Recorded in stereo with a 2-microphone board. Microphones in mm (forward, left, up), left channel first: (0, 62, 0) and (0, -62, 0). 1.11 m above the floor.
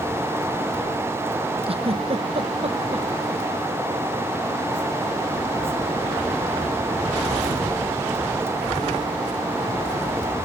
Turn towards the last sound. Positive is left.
turn(degrees=-50)  # may be behind; listen again after turning